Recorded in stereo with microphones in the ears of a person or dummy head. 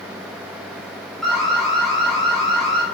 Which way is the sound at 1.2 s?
5° left (ahead or behind).